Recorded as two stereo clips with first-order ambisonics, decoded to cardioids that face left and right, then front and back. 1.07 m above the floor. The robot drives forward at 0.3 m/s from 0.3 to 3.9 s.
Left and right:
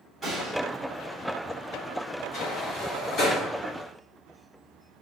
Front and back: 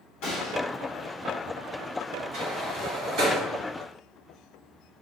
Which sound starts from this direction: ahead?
A gunshot, at 0.2 s.